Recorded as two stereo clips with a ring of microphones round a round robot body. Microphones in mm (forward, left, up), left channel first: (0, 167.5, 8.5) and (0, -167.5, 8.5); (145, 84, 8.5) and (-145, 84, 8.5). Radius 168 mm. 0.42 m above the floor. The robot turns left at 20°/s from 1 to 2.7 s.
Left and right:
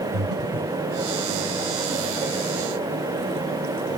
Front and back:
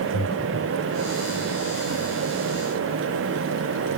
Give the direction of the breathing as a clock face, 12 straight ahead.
2 o'clock.